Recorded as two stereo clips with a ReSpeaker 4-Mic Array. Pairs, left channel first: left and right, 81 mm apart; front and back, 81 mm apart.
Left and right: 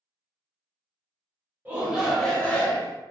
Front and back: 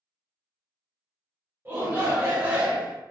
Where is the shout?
145° right, 1.1 m; by 3.0 s 125° left, 1.2 m.